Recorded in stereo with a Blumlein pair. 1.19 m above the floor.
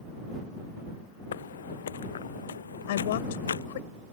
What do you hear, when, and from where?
1.3 s footsteps: 60° left; by 3.7 s 70° left
2.9 s a woman speaking: 55° left